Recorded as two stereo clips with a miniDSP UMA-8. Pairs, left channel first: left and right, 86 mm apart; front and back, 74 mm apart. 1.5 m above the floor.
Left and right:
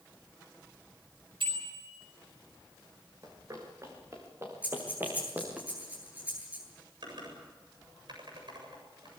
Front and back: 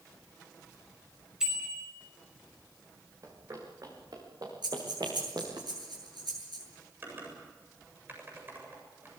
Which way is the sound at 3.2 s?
135° right.